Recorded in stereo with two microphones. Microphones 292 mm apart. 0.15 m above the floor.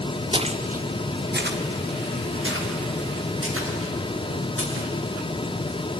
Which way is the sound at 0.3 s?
15° right (ahead or behind).